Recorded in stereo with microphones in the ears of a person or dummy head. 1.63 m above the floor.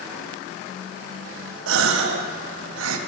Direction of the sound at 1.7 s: 80° right.